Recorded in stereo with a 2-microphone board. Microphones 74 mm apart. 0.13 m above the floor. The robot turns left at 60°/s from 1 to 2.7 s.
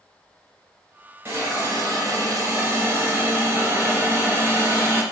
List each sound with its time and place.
1.2 s a hiss: 40° right, 0.9 m; by 5.0 s 130° right, 0.9 m